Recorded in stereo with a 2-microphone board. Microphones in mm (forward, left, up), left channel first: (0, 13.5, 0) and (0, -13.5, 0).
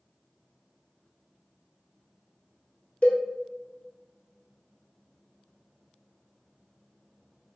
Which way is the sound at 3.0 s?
50° left (ahead or behind).